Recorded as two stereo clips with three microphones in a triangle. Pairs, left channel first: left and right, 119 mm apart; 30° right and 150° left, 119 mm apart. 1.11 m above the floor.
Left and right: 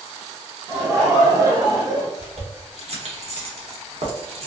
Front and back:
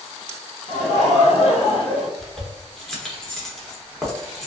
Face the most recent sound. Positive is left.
turn(degrees=-115)